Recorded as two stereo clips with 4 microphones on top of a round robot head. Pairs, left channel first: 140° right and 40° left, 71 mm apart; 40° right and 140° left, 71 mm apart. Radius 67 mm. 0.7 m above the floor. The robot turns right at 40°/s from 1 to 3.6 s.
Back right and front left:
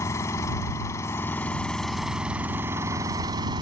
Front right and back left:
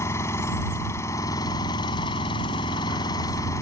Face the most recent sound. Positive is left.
turn(degrees=15)